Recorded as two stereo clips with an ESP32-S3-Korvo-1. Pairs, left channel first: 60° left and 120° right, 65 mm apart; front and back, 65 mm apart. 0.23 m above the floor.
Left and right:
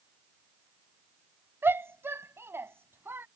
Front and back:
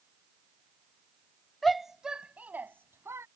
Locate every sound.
1.6 s a shout: 85° right; by 3.3 s 160° right